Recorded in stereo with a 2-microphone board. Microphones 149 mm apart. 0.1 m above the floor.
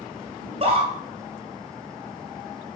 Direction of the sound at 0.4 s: 40° right (ahead or behind).